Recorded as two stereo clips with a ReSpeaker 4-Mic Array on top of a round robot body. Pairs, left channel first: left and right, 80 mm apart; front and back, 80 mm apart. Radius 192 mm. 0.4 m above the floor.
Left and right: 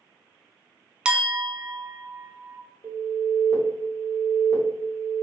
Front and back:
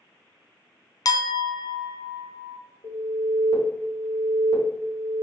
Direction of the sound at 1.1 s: 15° right.